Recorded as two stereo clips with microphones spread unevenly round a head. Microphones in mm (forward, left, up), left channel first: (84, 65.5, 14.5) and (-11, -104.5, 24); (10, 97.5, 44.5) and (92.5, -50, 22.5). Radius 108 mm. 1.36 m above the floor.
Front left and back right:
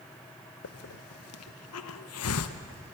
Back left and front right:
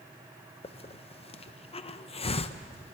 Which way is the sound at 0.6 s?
65° left.